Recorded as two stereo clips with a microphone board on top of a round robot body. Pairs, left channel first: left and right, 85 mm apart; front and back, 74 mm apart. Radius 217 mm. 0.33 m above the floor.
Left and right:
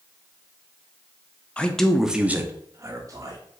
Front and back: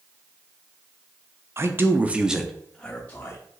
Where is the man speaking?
160° left, 0.9 m; by 3.4 s 60° right, 1.1 m.